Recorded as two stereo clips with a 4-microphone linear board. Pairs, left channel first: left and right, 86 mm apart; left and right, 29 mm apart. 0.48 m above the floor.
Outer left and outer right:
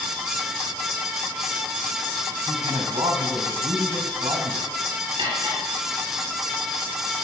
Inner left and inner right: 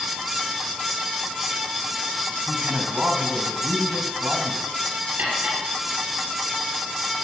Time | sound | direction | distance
2.5 | a man speaking | 70° right (ahead or behind) | 3.5 m
5.2 | cutlery clinking | 65° right (ahead or behind) | 6 m